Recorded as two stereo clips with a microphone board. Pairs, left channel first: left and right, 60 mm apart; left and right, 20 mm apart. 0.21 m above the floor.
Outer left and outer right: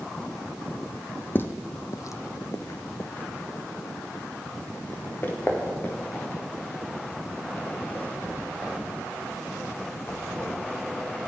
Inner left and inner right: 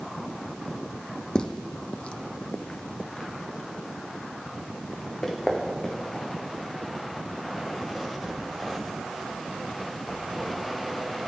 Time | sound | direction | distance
1.4 | footsteps | 35° left (ahead or behind) | 0.7 m